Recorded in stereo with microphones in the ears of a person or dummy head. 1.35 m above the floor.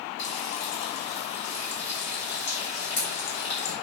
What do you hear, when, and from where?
0.2 s frying: 70° left (ahead or behind), 4.5 m